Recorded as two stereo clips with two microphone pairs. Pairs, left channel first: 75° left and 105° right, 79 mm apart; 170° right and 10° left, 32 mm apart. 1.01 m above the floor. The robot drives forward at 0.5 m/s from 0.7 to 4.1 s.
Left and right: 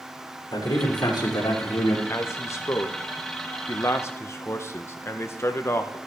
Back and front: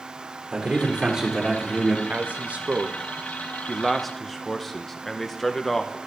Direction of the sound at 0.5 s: 55° left.